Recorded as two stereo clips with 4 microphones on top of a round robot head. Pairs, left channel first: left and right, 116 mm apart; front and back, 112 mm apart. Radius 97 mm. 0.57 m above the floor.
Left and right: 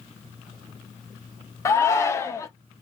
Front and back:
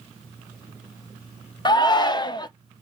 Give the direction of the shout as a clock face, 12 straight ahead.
11 o'clock.